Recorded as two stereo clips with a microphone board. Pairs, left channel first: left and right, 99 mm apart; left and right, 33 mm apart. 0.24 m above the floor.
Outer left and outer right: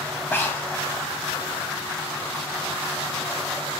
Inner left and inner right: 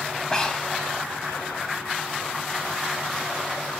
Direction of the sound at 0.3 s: 20° left (ahead or behind).